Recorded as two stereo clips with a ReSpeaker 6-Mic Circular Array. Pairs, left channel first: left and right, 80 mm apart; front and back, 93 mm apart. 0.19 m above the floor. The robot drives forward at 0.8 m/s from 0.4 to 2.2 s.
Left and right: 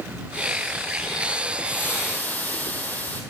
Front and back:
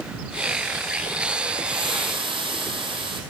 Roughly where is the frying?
Behind left.